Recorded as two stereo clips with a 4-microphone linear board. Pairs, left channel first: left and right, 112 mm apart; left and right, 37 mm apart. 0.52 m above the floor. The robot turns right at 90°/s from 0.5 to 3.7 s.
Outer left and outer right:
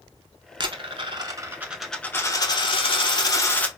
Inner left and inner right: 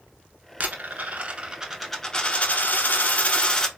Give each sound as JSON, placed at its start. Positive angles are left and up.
{"t": 0.6, "sound": "a dropped coin", "azimuth_deg": -115, "distance_m": 0.6}